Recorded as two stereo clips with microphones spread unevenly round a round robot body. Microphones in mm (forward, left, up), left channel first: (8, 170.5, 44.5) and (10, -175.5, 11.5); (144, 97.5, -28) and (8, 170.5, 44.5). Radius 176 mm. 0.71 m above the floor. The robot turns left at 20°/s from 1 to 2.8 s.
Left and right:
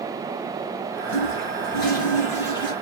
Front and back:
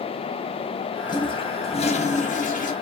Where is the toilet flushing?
55° left, 0.7 m; by 2.7 s 20° left, 0.7 m.